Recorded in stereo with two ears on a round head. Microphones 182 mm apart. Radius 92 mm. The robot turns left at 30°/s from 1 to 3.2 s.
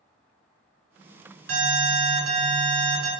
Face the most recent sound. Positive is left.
turn(degrees=-115)